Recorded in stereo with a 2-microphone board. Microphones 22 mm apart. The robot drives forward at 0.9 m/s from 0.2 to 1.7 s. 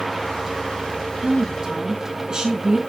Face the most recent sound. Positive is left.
turn(degrees=-40)  # may be behind; listen again after turning